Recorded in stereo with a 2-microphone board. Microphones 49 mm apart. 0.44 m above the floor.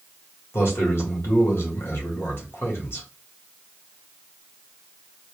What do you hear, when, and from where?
0.5 s a man speaking: 55° left (ahead or behind), 2.0 m